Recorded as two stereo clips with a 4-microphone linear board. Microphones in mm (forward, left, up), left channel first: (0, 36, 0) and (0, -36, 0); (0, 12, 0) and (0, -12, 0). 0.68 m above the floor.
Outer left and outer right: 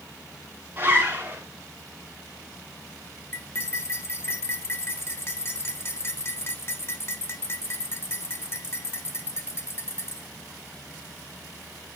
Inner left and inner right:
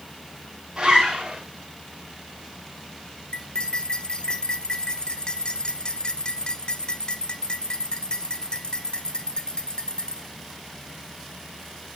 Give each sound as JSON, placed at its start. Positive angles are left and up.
{"t": 0.8, "sound": "a zipper", "side_deg": -25, "distance_m": 7.0}
{"t": 3.3, "sound": "cutlery clinking", "side_deg": 35, "distance_m": 1.3}